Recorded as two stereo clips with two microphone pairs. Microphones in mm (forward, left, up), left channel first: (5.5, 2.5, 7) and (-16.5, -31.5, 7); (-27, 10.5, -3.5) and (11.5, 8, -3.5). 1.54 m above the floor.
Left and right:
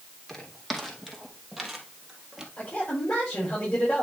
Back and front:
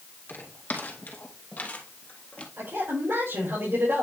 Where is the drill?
I don't hear a drill.